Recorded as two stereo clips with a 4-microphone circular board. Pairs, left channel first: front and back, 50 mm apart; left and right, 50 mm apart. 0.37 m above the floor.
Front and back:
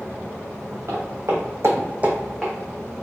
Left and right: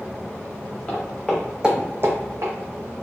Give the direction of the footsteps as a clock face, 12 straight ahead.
7 o'clock.